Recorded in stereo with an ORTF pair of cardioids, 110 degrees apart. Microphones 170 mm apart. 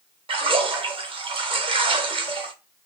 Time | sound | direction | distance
0.3 | a splash | 35° right | 1.0 m